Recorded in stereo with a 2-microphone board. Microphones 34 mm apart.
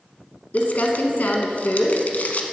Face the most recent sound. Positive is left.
turn(degrees=55)  # may be behind; listen again after turning